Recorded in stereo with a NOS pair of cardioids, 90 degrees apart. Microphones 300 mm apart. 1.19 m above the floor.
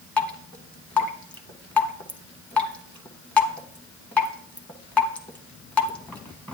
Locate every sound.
0.2 s dripping: 5° left, 1.2 m